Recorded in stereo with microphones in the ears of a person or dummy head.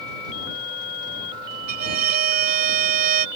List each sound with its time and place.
1.7 s a violin: 55° right (ahead or behind)